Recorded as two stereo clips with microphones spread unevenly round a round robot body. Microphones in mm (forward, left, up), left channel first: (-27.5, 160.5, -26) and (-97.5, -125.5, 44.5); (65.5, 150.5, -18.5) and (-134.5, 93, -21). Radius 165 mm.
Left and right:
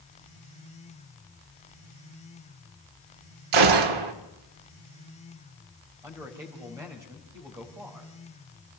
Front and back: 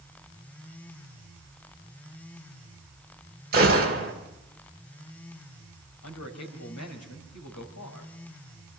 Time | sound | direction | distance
3.5 | a gunshot | 100° right | 1.8 m
6.0 | a man speaking | 20° right | 3.5 m